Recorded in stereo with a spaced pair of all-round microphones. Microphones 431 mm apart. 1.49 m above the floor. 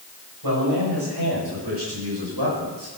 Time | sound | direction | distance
0.4 | a man speaking | 65° right (ahead or behind) | 9 m